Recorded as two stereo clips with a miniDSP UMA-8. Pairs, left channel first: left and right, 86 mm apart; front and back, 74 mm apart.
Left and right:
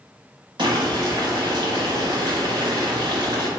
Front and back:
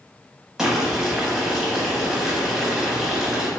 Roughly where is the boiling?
Right.